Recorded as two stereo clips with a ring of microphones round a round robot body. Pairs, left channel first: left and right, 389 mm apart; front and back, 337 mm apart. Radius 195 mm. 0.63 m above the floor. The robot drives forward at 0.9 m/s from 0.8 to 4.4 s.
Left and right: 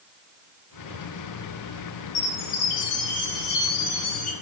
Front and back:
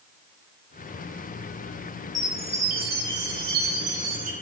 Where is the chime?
100° left, 2 m; by 4.3 s 140° left, 3 m.